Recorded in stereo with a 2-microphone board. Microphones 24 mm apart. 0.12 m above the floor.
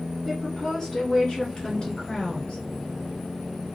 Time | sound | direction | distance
0.2 | a woman speaking | 15° left (ahead or behind) | 1.7 m